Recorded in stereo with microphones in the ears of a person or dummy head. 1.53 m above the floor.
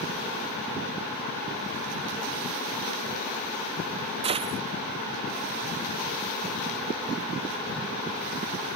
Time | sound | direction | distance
4.2 | a gunshot | 30° right (ahead or behind) | ?